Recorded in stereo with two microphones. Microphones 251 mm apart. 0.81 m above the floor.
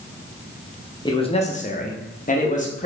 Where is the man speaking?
15° left (ahead or behind), 0.5 m; by 2.9 s 30° left (ahead or behind), 0.9 m.